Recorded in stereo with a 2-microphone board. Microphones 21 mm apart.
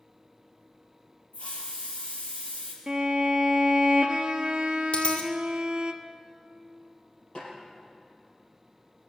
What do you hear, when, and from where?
1.3 s a hiss: 70° left (ahead or behind), 4 m
2.9 s a violin: 35° right (ahead or behind), 1.0 m
4.9 s a dropped coin: 70° left (ahead or behind), 2 m
7.3 s a snare drum: 50° left (ahead or behind), 6 m